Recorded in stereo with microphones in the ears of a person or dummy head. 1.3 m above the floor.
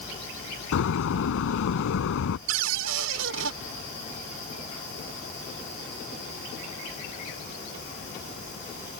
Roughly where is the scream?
No scream in this recording.